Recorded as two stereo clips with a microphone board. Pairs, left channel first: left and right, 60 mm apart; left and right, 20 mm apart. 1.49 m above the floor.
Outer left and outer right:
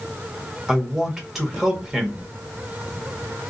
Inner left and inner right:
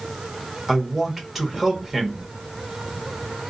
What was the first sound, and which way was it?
A man speaking, 5° right (ahead or behind).